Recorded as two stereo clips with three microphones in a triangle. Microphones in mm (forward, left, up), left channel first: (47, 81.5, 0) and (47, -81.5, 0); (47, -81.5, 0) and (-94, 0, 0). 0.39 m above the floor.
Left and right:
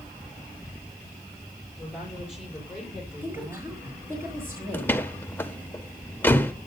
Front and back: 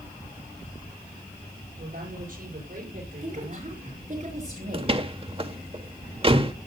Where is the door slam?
160° left, 1.0 m.